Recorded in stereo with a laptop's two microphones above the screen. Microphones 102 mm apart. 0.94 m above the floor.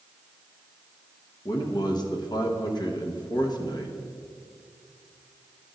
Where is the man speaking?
45° left (ahead or behind), 0.9 m.